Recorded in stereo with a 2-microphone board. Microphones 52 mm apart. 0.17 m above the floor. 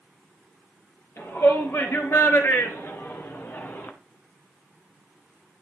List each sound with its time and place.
1.2 s a shout: 55° left (ahead or behind), 3 m; by 3.9 s 40° left (ahead or behind), 1.3 m